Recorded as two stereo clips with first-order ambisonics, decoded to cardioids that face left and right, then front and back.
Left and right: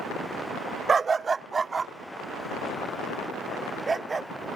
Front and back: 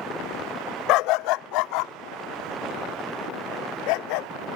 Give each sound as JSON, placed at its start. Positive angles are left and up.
{"t": 0.9, "sound": "a dog barking", "azimuth_deg": -20}